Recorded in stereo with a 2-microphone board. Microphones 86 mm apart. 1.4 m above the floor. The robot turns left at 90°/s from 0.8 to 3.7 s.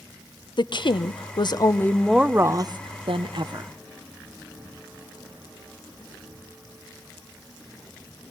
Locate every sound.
0.6 s a woman speaking: 115° left, 0.7 m; by 3.7 s 145° right, 0.7 m